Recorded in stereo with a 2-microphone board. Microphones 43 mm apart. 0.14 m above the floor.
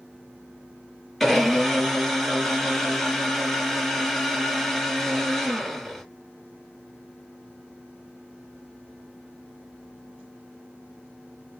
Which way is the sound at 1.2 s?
Centre (ahead or behind).